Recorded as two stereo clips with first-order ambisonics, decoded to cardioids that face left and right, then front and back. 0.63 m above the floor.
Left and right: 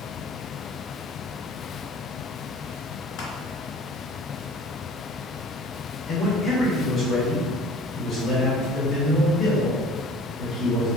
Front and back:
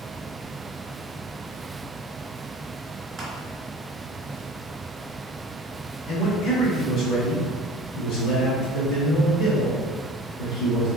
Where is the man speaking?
15° left, 1.5 m.